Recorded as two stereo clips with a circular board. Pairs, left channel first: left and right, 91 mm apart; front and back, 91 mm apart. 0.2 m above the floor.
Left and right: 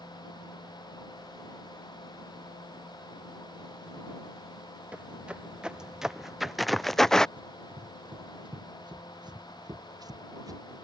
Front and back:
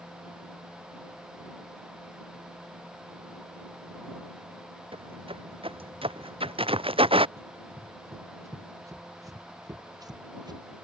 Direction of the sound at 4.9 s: 165° right.